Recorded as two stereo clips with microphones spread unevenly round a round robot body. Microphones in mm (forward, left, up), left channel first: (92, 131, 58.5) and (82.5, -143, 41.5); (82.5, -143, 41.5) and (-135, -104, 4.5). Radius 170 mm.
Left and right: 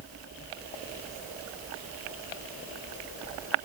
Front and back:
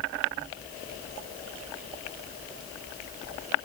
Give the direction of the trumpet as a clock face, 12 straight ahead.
I don't hear a trumpet.